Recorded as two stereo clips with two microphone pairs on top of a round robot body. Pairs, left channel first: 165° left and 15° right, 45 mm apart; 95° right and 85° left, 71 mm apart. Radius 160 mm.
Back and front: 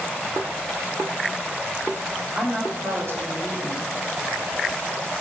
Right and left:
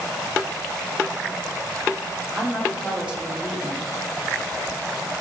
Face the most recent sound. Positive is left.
turn(degrees=10)